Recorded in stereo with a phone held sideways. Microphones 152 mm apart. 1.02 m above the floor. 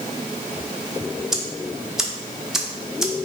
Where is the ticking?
5° right (ahead or behind), 0.6 m.